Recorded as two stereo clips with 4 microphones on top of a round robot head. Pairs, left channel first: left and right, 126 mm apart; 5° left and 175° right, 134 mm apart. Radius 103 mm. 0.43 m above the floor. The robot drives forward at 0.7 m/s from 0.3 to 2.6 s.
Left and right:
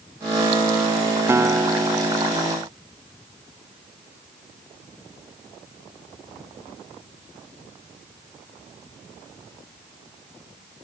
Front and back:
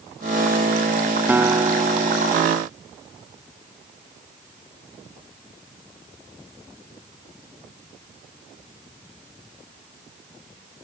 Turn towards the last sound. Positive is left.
turn(degrees=-165)